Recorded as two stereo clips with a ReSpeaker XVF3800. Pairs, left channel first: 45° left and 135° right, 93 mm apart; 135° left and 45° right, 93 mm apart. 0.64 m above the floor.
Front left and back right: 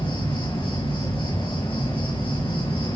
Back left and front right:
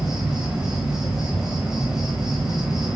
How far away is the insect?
About 6 m.